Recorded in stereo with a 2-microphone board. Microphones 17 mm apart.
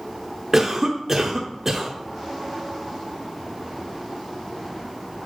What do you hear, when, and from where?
0.5 s a cough: 20° right (ahead or behind), 0.8 m